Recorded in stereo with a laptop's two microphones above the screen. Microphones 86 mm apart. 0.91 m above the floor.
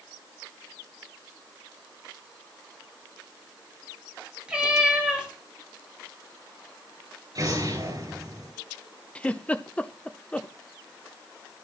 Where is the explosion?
50° right (ahead or behind), 5 m.